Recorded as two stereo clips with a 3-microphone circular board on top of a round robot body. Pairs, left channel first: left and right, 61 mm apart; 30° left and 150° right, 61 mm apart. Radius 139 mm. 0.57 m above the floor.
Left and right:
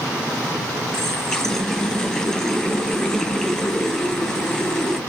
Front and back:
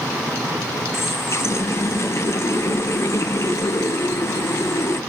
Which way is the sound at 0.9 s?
10° left.